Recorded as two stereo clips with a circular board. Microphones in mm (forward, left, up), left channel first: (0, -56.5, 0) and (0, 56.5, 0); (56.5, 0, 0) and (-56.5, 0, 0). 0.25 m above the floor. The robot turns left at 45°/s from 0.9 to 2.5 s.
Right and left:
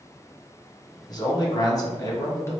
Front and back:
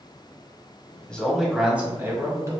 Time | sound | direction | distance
1.1 | a man speaking | 75° right | 1.4 m